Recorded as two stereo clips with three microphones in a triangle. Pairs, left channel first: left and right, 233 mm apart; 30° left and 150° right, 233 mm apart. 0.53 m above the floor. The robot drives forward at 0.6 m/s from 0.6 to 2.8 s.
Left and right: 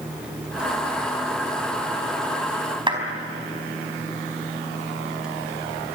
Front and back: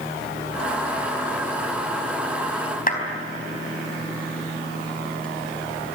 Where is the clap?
20° right, 4 m.